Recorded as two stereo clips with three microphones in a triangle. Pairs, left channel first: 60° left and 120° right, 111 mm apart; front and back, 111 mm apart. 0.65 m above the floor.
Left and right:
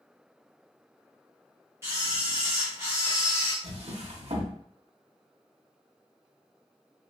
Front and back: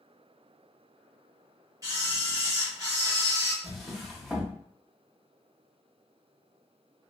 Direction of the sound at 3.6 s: 90° right.